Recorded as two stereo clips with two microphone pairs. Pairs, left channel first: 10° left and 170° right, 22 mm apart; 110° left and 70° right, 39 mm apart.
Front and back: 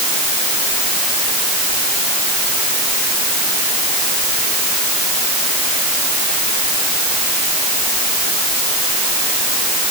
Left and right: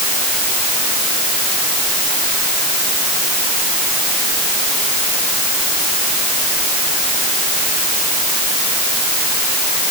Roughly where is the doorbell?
No doorbell in this recording.